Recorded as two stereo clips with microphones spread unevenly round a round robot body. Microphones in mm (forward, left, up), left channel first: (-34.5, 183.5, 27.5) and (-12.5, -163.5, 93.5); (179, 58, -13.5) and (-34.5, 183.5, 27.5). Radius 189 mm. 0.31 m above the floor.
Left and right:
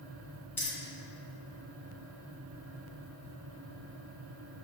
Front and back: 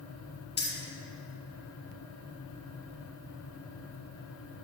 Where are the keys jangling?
15° left, 2 m.